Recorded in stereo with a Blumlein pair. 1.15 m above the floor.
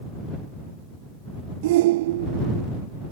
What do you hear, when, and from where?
1.6 s a shout: 55° right